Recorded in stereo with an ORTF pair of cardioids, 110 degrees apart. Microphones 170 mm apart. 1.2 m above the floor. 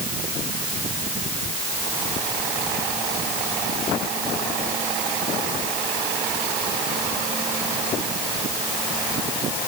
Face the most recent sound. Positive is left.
No sound to turn to.